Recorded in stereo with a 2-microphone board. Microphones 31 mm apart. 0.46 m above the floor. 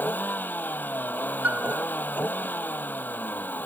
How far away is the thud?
I don't hear a thud.